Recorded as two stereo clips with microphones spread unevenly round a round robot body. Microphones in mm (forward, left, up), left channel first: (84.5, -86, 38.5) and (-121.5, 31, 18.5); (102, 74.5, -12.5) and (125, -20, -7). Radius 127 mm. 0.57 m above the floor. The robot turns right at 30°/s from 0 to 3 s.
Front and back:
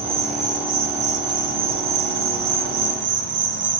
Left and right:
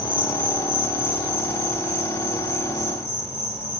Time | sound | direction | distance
0.0 | an insect | 85° left | 0.8 m